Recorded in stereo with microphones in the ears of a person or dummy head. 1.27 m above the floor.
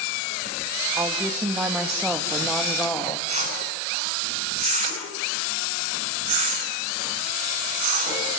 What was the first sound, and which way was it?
A woman speaking, 20° right (ahead or behind).